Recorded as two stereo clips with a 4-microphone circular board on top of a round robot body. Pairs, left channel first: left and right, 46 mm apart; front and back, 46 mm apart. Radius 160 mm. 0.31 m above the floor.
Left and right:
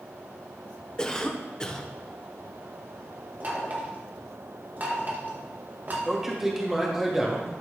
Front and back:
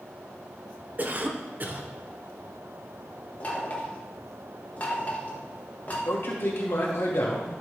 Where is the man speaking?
10° right, 1.9 m.